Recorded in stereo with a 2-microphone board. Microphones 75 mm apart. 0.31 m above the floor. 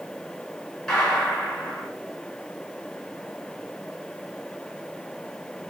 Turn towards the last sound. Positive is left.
turn(degrees=5)  # may be behind; listen again after turning